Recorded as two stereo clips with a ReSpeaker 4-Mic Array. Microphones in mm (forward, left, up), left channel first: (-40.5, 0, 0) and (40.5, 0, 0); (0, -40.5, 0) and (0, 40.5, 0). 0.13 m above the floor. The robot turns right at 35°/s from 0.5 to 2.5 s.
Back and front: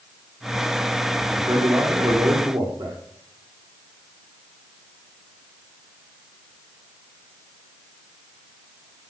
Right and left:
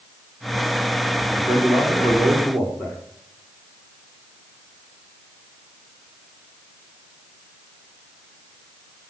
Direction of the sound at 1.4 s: 50° right.